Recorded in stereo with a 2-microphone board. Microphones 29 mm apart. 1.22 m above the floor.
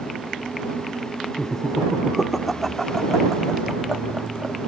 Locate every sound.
1.4 s laughter: 15° left (ahead or behind); by 4.6 s 35° right (ahead or behind)